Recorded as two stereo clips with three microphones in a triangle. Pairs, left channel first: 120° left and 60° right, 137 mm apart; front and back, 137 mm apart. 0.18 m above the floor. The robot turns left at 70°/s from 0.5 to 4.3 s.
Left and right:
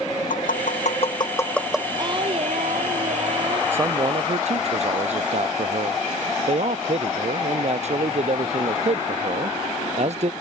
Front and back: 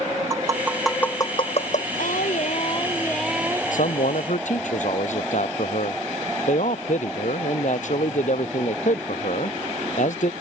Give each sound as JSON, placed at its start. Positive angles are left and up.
{"t": 0.3, "sound": "tapping", "azimuth_deg": 115}
{"t": 2.0, "sound": "singing", "azimuth_deg": 0}
{"t": 3.7, "sound": "a man speaking", "azimuth_deg": 15}